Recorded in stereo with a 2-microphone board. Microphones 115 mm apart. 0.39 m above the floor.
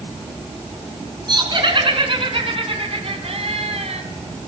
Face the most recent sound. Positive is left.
turn(degrees=-70)  # may be behind; listen again after turning